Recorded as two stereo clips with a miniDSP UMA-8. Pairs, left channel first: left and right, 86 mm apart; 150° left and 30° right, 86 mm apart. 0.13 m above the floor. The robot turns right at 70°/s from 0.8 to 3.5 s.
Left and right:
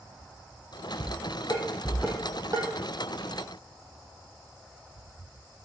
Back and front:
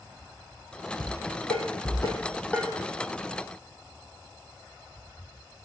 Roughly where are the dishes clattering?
Behind left.